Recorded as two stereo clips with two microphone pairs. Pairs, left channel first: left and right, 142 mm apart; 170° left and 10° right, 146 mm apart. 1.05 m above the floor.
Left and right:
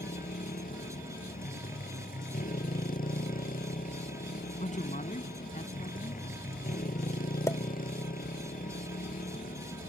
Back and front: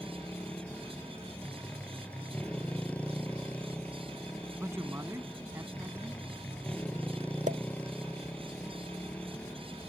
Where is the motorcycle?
90° left.